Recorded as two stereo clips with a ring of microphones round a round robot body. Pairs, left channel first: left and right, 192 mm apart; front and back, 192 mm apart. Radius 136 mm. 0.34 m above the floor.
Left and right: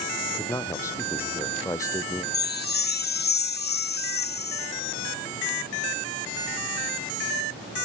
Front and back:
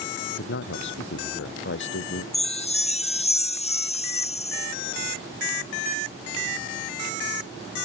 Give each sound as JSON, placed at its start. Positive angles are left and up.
{"t": 0.2, "sound": "a man speaking", "azimuth_deg": 15}
{"t": 2.3, "sound": "a chime", "azimuth_deg": 55}